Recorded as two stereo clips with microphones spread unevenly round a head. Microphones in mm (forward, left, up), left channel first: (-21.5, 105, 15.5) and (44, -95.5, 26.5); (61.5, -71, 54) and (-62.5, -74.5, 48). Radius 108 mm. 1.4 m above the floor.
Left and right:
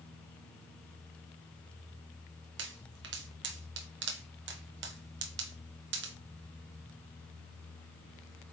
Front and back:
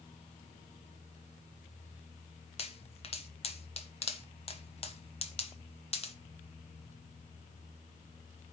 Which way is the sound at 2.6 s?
35° right.